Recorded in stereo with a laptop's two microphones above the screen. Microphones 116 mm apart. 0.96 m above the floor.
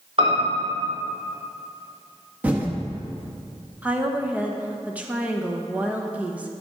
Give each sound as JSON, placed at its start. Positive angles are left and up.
{"t": 0.2, "sound": "a piano", "side_deg": -55, "distance_m": 2.0}
{"t": 2.4, "sound": "typing on a keyboard", "side_deg": -15, "distance_m": 1.2}
{"t": 3.8, "sound": "a woman speaking", "side_deg": -10, "distance_m": 0.8}